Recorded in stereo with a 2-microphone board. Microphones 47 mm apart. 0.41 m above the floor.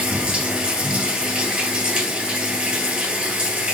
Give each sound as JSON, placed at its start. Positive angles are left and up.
{"t": 0.0, "sound": "running water", "side_deg": -15, "distance_m": 1.8}